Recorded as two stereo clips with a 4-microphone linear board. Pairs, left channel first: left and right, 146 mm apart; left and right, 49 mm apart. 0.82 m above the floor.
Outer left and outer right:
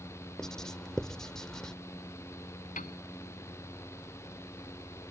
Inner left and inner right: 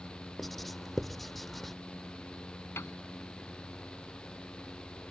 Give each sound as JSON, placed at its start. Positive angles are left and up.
{"t": 0.4, "sound": "writing", "side_deg": 5}
{"t": 2.8, "sound": "a piano", "side_deg": 65}